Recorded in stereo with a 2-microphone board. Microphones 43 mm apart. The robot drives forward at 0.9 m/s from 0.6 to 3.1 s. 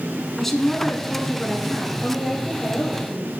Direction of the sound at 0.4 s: 5° left (ahead or behind).